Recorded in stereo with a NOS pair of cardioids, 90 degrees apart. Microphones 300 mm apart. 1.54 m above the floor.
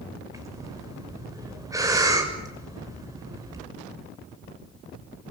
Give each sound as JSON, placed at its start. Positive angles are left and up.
{"t": 0.3, "sound": "breathing", "azimuth_deg": -10, "distance_m": 6.5}